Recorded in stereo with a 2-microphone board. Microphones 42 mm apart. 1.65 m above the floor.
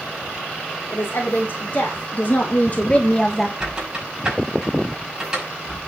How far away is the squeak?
About 6.5 m.